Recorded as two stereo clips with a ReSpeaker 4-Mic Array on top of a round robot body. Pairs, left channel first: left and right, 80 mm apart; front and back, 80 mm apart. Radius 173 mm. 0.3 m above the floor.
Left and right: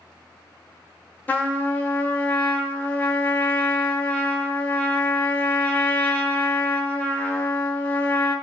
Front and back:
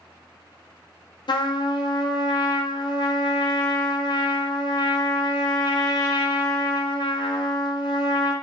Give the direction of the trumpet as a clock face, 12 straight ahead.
11 o'clock.